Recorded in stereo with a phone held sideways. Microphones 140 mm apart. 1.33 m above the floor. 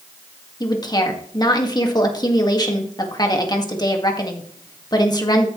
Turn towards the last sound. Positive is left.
turn(degrees=30)  # may be behind; listen again after turning